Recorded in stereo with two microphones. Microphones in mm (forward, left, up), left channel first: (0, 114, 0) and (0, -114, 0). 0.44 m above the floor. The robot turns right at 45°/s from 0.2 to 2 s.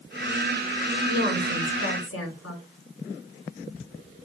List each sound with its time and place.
1.1 s a woman speaking: 30° left, 5 m; by 2.6 s 75° left, 5 m